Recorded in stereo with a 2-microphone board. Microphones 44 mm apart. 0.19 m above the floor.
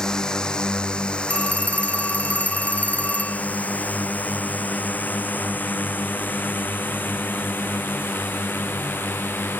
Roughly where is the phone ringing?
Left.